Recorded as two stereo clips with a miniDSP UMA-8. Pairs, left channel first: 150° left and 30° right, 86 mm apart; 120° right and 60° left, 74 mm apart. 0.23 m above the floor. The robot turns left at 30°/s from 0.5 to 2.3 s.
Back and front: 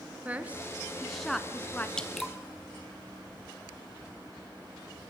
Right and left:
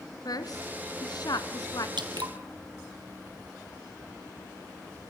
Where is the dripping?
70° left, 1.9 m; by 2.3 s 60° left, 1.9 m.